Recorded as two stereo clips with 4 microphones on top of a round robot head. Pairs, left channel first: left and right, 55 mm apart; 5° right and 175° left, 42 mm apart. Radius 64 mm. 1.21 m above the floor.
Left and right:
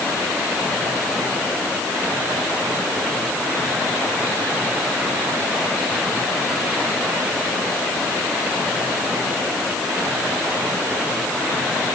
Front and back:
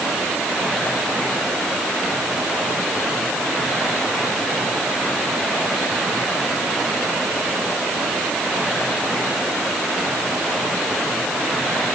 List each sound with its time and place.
Only background noise.